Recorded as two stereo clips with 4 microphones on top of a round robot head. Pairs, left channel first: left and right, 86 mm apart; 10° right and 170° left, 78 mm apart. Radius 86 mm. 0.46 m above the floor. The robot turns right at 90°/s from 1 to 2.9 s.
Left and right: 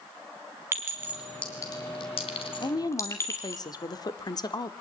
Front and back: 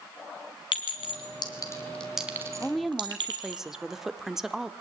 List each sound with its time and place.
0.7 s a clink: 25° right, 3 m; by 3.6 s 145° left, 3 m
2.6 s a woman speaking: 60° left, 1.6 m; by 4.7 s 85° left, 1.6 m